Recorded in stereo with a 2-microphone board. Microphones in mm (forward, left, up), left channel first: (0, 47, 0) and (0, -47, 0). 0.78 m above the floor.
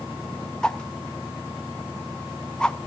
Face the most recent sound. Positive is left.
turn(degrees=10)  # may be behind; listen again after turning